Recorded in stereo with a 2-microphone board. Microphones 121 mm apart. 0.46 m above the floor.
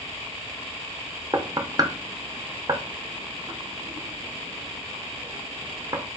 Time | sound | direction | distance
1.3 | knocking | 30° right (ahead or behind) | 0.7 m